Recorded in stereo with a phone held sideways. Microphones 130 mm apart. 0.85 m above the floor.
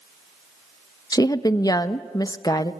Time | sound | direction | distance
1.1 | a woman speaking | 30° left (ahead or behind) | 0.8 m